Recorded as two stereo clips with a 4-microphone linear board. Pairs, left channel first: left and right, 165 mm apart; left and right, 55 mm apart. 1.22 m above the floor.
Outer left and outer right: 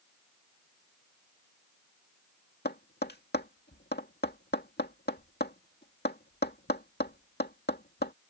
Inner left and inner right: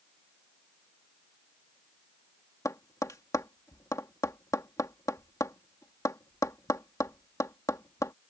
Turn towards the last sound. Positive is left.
turn(degrees=85)